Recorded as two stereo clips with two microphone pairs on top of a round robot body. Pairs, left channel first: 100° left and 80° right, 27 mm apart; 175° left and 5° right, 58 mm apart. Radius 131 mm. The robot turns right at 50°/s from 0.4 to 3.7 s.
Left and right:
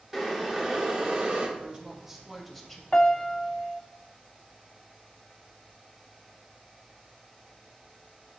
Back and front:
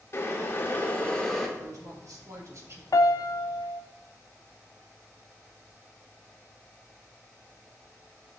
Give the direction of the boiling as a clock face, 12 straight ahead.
5 o'clock.